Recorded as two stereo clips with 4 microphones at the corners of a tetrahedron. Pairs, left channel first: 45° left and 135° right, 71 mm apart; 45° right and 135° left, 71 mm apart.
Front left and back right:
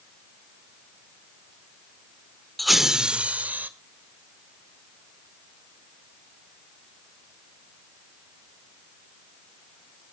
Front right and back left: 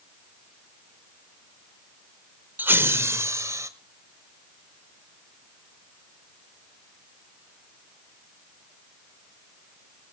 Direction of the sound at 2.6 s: 130° left.